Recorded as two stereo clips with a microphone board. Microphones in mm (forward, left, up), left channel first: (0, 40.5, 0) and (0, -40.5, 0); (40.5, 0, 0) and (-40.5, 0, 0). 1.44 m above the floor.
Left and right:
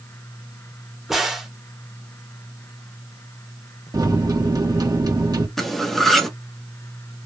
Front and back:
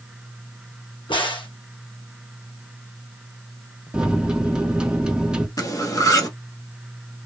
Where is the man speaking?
I don't hear a man speaking.